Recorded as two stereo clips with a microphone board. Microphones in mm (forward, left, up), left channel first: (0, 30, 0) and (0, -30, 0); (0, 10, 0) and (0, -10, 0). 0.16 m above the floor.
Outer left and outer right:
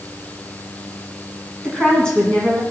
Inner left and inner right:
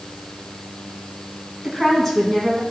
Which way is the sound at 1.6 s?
15° left (ahead or behind).